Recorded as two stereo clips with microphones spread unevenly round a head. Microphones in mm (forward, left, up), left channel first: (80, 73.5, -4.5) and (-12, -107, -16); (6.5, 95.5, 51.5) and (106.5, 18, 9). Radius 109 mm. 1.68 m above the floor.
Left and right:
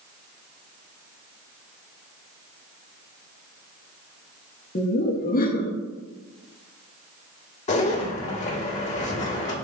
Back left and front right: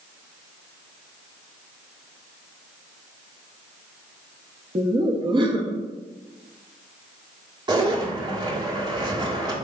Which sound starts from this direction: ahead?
Laughter, at 4.8 s.